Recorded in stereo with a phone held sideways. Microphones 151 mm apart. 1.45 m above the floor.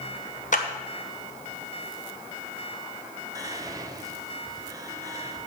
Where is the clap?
55° left (ahead or behind), 1.0 m.